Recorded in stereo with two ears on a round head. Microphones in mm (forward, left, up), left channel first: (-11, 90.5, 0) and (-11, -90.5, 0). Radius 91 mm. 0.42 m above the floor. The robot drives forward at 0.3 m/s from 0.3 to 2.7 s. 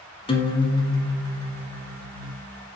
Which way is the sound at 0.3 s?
25° left (ahead or behind).